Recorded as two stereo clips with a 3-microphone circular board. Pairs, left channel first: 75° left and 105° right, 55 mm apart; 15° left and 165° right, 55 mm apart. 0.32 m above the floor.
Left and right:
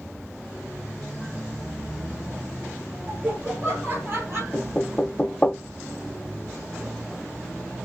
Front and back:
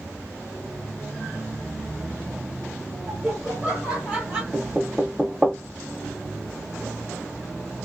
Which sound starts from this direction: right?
Laughter, at 3.1 s.